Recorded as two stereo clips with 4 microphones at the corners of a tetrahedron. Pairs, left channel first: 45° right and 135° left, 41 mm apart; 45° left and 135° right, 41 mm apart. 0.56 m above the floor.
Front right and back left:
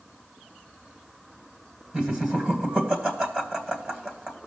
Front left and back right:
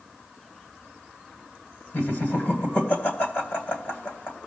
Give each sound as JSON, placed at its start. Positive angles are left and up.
{"t": 1.9, "sound": "laughter", "azimuth_deg": 65, "distance_m": 3.0}